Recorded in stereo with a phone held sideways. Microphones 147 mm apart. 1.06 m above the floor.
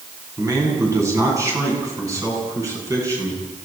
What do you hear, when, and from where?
0.4 s a man speaking: 25° right (ahead or behind), 8.5 m